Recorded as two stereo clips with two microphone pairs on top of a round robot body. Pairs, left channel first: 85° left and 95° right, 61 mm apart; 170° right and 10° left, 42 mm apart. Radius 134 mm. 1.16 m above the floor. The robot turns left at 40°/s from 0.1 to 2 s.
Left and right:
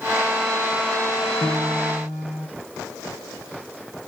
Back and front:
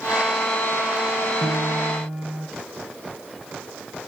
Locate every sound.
1.4 s a piano: 30° left, 2 m; by 2.5 s 5° left, 2 m